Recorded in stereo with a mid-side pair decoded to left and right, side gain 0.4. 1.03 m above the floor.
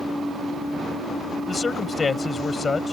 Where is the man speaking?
35° left.